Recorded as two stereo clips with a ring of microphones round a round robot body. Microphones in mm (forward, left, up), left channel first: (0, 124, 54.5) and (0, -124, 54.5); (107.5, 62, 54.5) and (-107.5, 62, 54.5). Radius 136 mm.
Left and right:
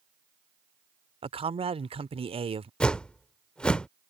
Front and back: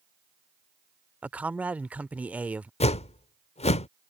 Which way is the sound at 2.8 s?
5° left.